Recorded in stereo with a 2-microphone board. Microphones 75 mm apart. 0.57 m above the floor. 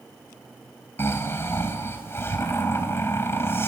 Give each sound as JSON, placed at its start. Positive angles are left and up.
{"t": 1.0, "sound": "snoring", "side_deg": 35, "distance_m": 3.5}